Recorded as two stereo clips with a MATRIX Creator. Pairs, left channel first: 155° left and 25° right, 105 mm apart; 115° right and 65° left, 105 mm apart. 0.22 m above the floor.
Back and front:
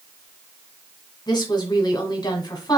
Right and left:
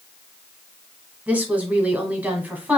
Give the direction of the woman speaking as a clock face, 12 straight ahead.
7 o'clock.